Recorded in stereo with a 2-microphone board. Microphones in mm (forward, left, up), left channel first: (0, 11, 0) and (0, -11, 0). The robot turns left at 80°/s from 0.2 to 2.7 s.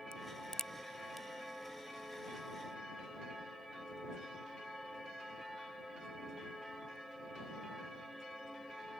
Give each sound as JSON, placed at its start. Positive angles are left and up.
{"t": 0.1, "sound": "a crack", "side_deg": 45}